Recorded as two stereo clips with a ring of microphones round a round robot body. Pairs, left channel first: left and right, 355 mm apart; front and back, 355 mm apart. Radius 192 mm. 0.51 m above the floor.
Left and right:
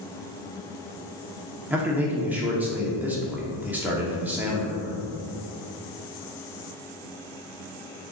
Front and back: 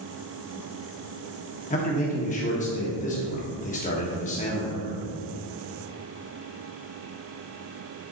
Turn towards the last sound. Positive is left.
turn(degrees=-15)